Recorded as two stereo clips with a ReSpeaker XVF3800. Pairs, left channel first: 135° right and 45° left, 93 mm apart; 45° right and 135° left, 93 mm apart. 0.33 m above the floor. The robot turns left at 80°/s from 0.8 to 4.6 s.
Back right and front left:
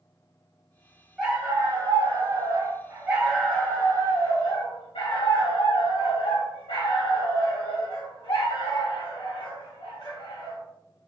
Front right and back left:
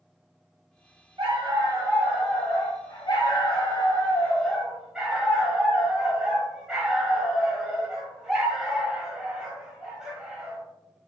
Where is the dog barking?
130° left, 1.1 m; by 10.6 s 145° right, 1.1 m.